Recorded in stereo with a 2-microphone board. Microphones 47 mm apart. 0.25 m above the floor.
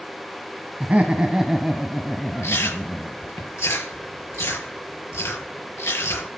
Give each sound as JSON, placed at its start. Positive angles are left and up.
{"t": 0.8, "sound": "laughter", "side_deg": -35, "distance_m": 1.7}
{"t": 2.4, "sound": "chewing", "side_deg": 75, "distance_m": 6.0}